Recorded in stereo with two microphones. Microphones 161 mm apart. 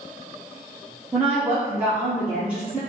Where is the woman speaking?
10° right (ahead or behind), 0.8 m.